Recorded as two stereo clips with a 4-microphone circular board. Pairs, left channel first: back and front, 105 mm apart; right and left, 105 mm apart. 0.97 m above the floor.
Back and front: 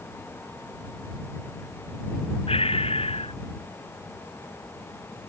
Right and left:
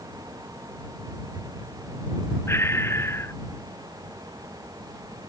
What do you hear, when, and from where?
2.5 s breathing: 155° right